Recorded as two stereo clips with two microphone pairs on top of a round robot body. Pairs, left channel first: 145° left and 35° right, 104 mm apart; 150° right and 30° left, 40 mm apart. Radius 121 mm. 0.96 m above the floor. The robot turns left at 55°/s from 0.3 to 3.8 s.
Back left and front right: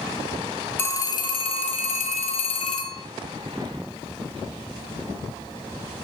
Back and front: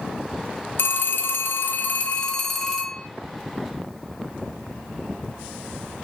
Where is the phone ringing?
145° right, 1.4 m; by 3.0 s 90° left, 1.4 m.